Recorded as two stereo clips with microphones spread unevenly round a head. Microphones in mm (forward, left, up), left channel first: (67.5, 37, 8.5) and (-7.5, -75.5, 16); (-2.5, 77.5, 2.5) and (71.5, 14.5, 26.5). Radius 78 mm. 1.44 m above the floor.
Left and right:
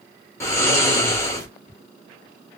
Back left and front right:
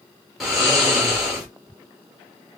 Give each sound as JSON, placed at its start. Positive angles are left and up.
{"t": 0.4, "sound": "snoring", "azimuth_deg": 5, "distance_m": 1.1}